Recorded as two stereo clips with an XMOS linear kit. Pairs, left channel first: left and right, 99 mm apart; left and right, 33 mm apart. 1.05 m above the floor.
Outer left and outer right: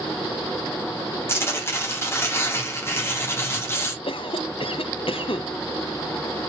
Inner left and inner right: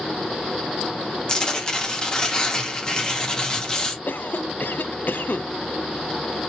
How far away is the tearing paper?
About 1.6 m.